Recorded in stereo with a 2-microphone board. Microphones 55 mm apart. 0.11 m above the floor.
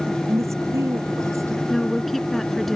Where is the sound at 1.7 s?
5° left (ahead or behind).